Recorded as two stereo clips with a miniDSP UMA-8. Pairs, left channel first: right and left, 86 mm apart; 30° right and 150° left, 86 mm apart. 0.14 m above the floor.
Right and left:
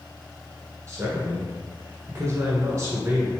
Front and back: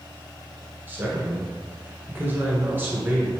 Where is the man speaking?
105° left, 1.3 m.